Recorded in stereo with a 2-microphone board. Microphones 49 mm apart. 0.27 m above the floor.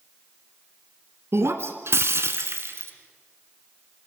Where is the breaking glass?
65° right (ahead or behind), 1.7 m.